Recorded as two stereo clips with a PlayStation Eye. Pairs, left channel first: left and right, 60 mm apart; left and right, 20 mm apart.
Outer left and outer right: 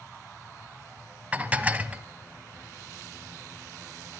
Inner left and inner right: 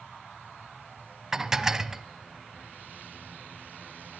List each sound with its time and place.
1.3 s dishes clattering: 25° right (ahead or behind), 1.0 m